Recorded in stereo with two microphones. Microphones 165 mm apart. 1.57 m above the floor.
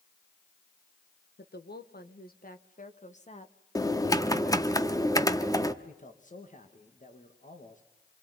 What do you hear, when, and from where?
1.4 s a woman speaking: 80° left, 1.8 m; by 3.5 s 40° left (ahead or behind), 1.8 m
3.8 s typing on a keyboard: 20° left (ahead or behind), 1.2 m
5.8 s a man speaking: 50° left (ahead or behind), 2.5 m